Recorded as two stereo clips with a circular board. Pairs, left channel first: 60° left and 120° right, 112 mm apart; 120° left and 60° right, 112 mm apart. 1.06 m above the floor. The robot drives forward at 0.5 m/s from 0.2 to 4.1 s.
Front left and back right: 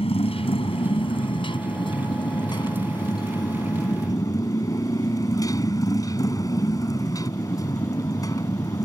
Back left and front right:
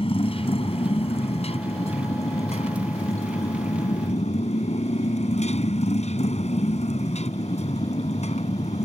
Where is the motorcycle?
90° left; by 8.9 s 120° left.